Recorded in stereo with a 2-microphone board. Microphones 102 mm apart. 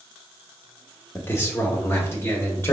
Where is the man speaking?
20° left (ahead or behind), 0.7 m; by 2.8 s 25° left (ahead or behind), 1.4 m.